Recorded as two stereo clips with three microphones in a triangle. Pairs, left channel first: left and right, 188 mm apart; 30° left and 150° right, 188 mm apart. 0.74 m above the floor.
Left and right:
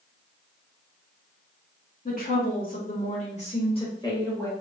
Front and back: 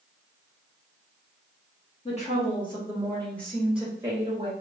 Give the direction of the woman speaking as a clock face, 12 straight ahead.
10 o'clock.